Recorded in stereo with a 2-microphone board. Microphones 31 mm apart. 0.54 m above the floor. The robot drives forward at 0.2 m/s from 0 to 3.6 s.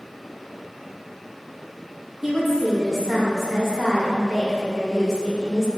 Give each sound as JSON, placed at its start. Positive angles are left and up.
{"t": 2.2, "sound": "a woman speaking", "side_deg": -10, "distance_m": 0.7}